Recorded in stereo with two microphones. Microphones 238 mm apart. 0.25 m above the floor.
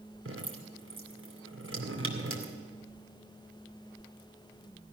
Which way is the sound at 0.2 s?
60° right (ahead or behind).